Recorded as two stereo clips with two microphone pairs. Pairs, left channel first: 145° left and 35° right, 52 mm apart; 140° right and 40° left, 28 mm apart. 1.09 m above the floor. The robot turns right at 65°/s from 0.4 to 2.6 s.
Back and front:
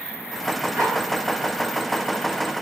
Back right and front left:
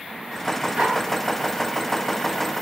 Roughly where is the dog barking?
Ahead.